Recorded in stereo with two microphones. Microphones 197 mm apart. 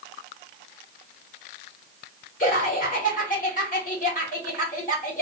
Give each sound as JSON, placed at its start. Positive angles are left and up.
{"t": 2.4, "sound": "laughter", "side_deg": 45, "distance_m": 1.7}